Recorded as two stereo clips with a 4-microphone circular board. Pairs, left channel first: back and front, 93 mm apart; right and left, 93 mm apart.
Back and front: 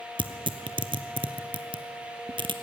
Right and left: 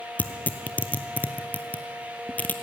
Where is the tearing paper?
20° right, 0.9 m.